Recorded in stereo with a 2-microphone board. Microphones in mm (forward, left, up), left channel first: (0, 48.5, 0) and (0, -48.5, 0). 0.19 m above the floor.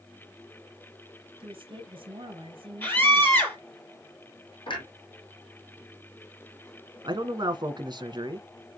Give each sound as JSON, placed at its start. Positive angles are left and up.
{"t": 1.4, "sound": "a woman speaking", "side_deg": -60, "distance_m": 3.5}
{"t": 2.8, "sound": "a scream", "side_deg": 20, "distance_m": 5.0}
{"t": 4.7, "sound": "a clunk", "side_deg": 55, "distance_m": 5.0}
{"t": 7.0, "sound": "a man speaking", "side_deg": -50, "distance_m": 1.7}